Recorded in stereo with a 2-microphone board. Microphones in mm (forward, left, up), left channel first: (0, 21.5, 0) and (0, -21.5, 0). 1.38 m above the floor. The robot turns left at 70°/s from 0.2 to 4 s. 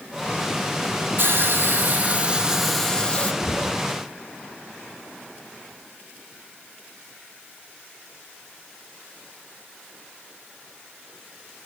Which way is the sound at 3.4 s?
65° left (ahead or behind).